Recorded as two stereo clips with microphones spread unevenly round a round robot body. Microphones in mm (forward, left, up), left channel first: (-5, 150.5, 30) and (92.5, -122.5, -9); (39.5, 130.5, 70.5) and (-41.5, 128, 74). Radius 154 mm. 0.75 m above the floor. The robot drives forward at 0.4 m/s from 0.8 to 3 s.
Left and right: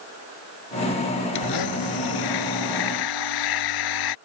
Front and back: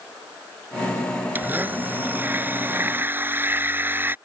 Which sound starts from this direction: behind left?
A blender, at 1.4 s.